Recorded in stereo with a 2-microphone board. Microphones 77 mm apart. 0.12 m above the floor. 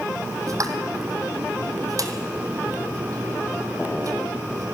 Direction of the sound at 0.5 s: 55° right (ahead or behind).